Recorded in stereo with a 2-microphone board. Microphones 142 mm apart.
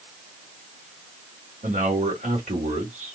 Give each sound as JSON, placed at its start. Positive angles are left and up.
{"t": 1.6, "sound": "a man speaking", "side_deg": -70, "distance_m": 2.0}